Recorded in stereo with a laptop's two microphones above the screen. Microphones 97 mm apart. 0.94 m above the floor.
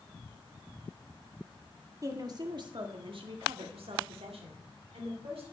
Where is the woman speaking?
35° right (ahead or behind), 1.7 m; by 5.4 s 75° right (ahead or behind), 3 m.